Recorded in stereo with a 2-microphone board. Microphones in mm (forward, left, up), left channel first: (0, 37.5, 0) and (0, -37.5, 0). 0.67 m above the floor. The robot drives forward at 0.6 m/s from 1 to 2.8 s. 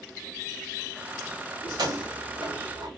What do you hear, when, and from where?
1.6 s keys jangling: 65° right (ahead or behind), 2 m; by 2.9 s 50° right (ahead or behind), 2.5 m